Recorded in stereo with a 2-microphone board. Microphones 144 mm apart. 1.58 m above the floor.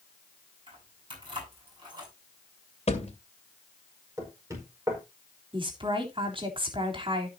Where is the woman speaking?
40° right (ahead or behind), 3.5 m.